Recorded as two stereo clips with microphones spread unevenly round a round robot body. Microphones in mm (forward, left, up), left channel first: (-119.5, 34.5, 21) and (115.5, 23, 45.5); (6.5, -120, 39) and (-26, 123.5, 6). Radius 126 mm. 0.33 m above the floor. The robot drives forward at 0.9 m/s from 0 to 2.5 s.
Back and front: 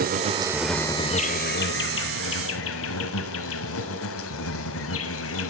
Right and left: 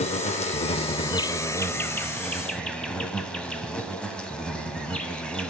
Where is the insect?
25° right, 1.0 m; by 5.5 s 170° right, 1.9 m.